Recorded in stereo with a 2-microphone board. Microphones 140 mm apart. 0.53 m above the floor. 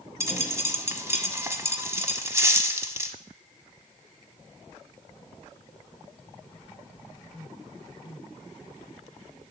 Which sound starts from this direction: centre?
A dropped coin, at 0.2 s.